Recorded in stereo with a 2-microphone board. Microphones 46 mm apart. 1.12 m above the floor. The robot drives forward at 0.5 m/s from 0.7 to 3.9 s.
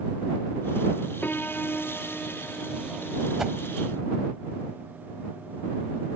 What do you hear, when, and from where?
1.2 s a piano: 40° left (ahead or behind); by 4.3 s 20° left (ahead or behind)
3.4 s a whoosh: 10° right (ahead or behind)